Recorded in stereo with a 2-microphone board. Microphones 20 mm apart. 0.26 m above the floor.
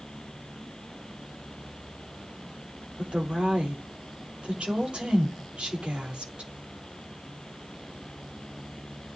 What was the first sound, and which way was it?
A woman speaking, 80° right.